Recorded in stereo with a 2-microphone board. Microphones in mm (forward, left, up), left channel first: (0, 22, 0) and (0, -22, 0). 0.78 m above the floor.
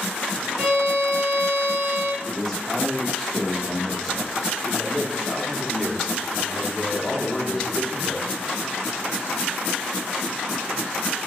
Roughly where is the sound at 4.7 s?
Left.